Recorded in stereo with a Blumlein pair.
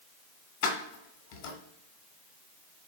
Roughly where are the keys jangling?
Ahead left.